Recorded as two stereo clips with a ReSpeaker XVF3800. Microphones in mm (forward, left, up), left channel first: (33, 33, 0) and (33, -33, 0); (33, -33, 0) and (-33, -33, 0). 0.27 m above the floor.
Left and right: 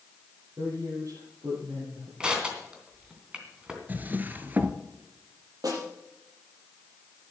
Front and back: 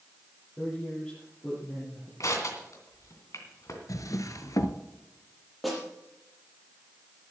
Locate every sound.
0.6 s a man speaking: 75° right, 7 m
2.2 s crushing: 15° right, 2.5 m
3.9 s a drawer: 30° right, 1.0 m
5.6 s a snare drum: 90° right, 5.5 m